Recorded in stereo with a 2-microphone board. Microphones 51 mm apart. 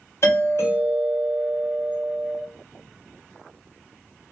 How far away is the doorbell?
About 1.4 m.